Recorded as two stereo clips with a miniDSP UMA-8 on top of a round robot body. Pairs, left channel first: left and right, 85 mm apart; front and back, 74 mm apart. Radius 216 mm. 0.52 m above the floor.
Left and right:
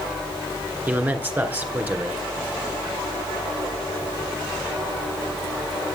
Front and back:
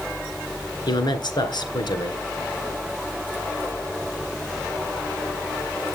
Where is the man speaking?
20° right, 2.5 m.